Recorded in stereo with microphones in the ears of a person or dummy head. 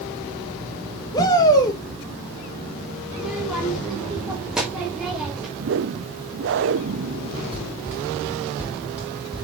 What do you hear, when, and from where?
1.1 s a shout: 20° left (ahead or behind), 1.0 m
3.1 s a child speaking: 5° right (ahead or behind), 1.4 m
5.6 s a whoosh: 55° right (ahead or behind), 0.6 m
7.5 s running footsteps: 15° right (ahead or behind), 6 m; by 9.4 s 5° right (ahead or behind), 6 m